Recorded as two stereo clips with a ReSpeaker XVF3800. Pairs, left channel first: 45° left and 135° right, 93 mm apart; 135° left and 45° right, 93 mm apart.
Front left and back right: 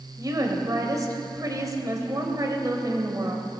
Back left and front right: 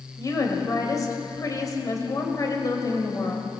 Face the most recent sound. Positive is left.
turn(degrees=180)